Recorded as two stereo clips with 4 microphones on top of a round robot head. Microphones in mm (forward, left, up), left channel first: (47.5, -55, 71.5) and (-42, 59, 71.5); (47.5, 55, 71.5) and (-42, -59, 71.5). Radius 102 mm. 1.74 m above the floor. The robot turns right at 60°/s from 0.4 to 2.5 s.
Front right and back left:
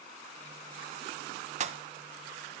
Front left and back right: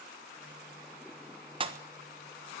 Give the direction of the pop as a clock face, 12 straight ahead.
6 o'clock.